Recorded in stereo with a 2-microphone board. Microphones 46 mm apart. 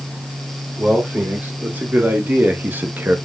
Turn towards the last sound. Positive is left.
turn(degrees=-50)  # may be behind; listen again after turning